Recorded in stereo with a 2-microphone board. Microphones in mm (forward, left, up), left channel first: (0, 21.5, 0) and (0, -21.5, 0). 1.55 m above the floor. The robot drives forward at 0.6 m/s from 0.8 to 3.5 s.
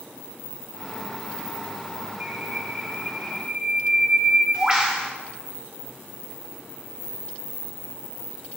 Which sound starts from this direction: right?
A bird, at 2.2 s.